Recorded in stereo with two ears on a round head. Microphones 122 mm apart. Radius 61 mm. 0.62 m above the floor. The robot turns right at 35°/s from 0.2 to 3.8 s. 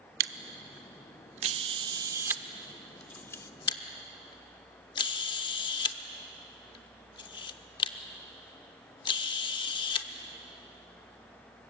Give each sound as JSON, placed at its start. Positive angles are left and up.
{"t": 0.2, "sound": "a camera shutter", "side_deg": -80, "distance_m": 0.7}